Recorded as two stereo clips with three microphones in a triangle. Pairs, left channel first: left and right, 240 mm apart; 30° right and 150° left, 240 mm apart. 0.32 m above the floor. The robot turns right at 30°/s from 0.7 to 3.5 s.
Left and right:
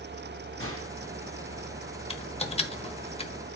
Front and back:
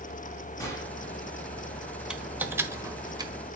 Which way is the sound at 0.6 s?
105° right.